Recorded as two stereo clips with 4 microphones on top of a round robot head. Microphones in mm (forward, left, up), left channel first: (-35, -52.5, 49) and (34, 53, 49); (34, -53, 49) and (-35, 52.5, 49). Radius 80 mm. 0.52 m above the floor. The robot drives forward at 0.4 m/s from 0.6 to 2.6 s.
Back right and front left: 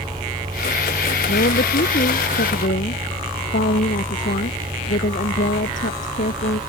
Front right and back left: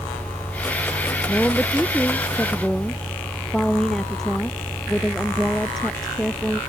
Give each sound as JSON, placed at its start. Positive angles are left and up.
{"t": 1.3, "sound": "a woman speaking", "azimuth_deg": -140}